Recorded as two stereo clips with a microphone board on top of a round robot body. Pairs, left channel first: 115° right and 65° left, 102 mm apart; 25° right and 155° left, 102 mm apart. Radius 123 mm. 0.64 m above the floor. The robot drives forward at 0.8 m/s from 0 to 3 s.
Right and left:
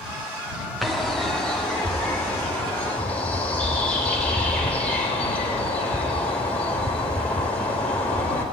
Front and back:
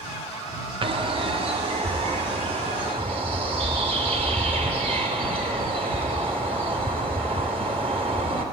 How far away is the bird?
About 1.6 m.